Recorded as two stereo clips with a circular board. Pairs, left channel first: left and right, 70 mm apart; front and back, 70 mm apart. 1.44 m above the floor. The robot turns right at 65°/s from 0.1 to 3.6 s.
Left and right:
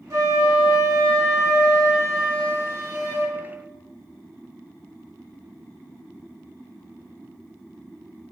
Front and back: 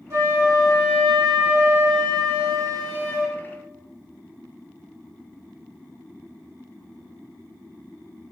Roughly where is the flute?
Behind right.